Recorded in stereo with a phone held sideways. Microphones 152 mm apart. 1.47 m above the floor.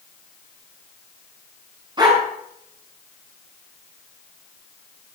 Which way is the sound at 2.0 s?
30° right (ahead or behind).